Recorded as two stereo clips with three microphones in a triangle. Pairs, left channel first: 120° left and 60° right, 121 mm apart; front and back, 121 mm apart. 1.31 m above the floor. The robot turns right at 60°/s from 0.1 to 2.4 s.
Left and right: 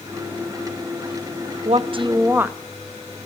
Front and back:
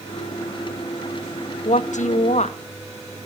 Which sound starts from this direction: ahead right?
A woman speaking, at 1.6 s.